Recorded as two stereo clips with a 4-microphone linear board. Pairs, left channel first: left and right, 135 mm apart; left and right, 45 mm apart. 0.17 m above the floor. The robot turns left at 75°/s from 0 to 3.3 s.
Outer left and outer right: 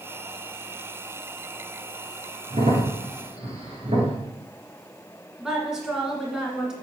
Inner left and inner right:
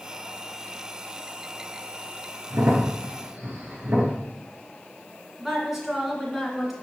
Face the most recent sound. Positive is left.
turn(degrees=-5)  # may be behind; listen again after turning